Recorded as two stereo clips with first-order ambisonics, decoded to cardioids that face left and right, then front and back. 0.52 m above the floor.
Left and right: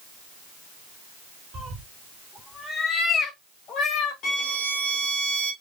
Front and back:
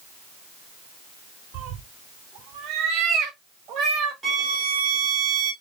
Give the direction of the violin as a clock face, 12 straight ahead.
8 o'clock.